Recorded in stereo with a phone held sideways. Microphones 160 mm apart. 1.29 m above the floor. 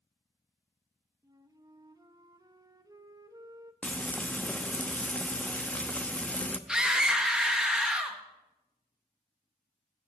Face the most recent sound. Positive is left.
turn(degrees=-5)  # may be behind; listen again after turning